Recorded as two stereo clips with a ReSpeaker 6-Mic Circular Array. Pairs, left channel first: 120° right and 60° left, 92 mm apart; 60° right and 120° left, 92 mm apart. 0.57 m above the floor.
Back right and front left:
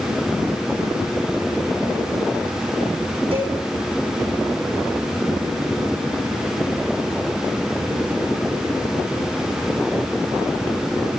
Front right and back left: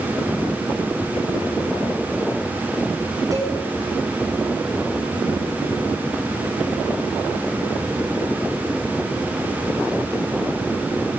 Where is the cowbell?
65° left, 8 m.